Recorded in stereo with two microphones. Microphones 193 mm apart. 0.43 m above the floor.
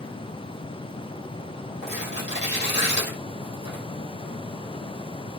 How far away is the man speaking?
I don't hear a man speaking.